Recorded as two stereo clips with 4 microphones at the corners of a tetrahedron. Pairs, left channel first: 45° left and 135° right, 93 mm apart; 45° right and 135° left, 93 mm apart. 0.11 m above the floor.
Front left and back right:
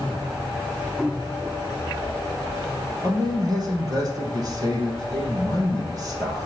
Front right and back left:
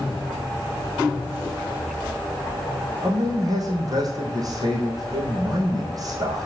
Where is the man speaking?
Straight behind, 3 m.